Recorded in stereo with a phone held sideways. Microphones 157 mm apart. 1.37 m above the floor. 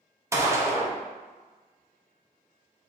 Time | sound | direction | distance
0.3 | a gunshot | 20° right (ahead or behind) | 0.6 m